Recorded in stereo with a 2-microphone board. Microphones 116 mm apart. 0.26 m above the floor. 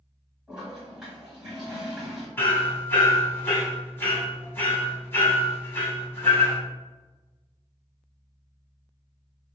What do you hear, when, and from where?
0.5 s a toilet flushing: 5° right (ahead or behind), 1.7 m
2.4 s hammering: 20° left (ahead or behind), 1.2 m